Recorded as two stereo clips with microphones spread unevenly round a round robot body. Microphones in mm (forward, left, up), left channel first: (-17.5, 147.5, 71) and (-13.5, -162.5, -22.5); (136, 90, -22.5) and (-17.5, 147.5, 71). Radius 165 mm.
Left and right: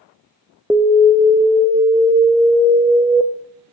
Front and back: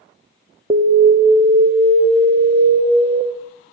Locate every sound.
0.7 s an alarm: 95° right, 1.1 m